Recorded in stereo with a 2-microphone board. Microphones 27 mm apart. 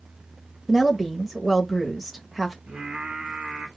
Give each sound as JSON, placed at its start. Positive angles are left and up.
{"t": 0.7, "sound": "a woman speaking", "side_deg": -5, "distance_m": 0.9}
{"t": 2.7, "sound": "singing", "side_deg": -55, "distance_m": 2.5}